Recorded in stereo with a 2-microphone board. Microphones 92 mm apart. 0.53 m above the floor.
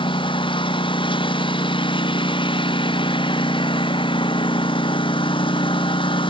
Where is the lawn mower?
65° left (ahead or behind).